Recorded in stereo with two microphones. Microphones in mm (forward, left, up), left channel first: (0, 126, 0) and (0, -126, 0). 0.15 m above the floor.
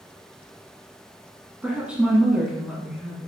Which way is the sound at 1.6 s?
5° right (ahead or behind).